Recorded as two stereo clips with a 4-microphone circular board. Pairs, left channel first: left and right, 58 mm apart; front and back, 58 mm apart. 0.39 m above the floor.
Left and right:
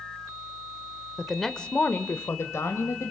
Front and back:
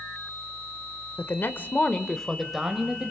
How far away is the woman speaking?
About 1.2 m.